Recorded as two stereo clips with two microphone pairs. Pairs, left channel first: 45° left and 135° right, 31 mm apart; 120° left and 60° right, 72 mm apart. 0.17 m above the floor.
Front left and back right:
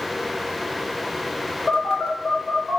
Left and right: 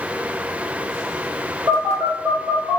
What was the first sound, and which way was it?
A phone buzzing, 35° right.